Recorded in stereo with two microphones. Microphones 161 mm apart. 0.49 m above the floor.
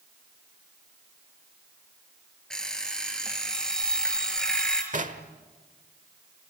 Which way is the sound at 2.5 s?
5° left (ahead or behind).